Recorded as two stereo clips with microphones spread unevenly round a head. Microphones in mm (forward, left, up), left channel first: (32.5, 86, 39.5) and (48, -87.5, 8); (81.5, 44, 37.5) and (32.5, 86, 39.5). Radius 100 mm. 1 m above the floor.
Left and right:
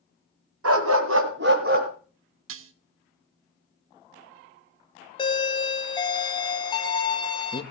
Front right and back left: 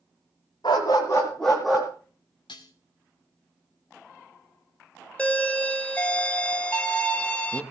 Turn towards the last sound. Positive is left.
turn(degrees=30)